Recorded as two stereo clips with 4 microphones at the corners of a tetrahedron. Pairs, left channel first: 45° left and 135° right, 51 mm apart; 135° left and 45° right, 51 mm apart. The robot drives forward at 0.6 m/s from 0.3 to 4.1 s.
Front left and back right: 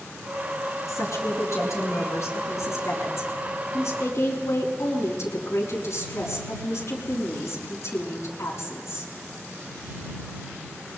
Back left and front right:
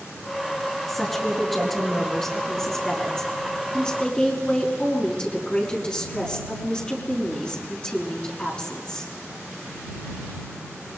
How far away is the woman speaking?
About 6.5 m.